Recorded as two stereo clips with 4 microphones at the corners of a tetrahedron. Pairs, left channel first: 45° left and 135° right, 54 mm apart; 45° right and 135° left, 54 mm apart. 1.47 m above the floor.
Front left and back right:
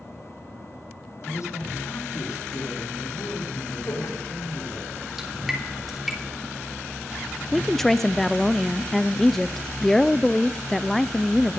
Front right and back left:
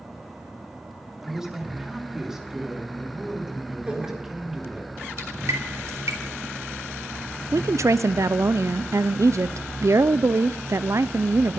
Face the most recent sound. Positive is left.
turn(degrees=130)